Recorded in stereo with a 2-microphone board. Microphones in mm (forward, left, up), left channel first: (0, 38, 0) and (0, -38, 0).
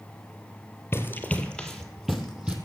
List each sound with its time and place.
0.9 s running footsteps: 30° left (ahead or behind), 1.6 m; by 2.6 s 15° right (ahead or behind), 2.5 m